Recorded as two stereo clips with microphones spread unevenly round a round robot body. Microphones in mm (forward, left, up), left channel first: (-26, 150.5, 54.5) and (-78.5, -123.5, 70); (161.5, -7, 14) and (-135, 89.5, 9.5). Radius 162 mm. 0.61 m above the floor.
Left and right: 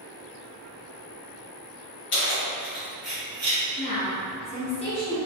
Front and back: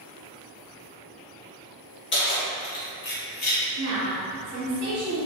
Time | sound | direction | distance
2.1 | keys jangling | 35° left | 1.1 m
3.8 | a woman speaking | 140° left | 1.4 m